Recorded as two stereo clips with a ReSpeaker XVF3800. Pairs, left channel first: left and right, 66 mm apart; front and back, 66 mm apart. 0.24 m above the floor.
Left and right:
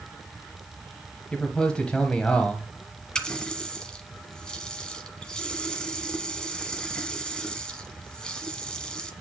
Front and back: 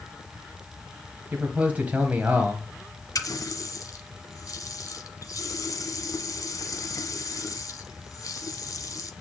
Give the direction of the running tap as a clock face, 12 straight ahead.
11 o'clock.